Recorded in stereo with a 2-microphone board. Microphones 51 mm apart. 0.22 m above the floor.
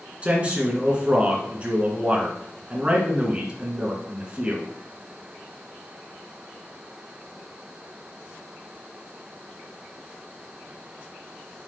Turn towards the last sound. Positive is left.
turn(degrees=-25)  # may be behind; listen again after turning